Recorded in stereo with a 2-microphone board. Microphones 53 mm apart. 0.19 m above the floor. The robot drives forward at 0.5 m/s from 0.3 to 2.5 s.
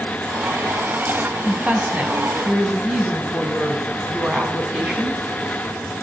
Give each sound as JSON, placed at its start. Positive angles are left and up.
{"t": 1.4, "sound": "a woman speaking", "side_deg": -25, "distance_m": 1.1}